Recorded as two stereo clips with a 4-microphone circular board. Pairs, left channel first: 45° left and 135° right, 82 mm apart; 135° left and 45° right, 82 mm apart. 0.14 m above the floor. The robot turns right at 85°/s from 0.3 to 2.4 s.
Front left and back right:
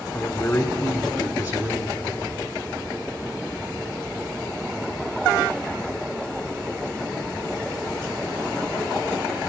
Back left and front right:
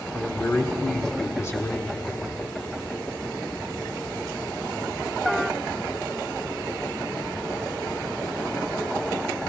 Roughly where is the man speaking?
Left.